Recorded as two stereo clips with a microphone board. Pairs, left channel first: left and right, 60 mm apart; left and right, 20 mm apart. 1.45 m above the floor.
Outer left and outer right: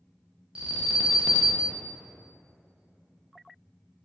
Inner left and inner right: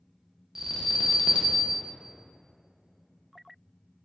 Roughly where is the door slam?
No door slam in this recording.